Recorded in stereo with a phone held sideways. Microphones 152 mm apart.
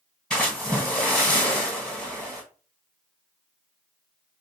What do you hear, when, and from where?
0.3 s a splash: 5° left (ahead or behind), 1.7 m